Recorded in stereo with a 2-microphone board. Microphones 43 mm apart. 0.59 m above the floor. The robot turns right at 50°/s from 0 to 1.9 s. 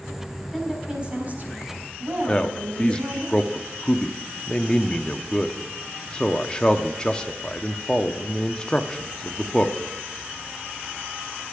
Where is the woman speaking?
175° right, 4 m; by 3.3 s 110° right, 4 m.